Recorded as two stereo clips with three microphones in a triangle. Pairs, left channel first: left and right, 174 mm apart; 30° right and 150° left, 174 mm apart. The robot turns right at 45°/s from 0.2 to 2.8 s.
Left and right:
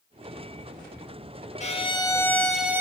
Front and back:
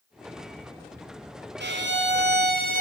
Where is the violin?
140° left, 1.0 m; by 2.8 s 165° right, 1.0 m.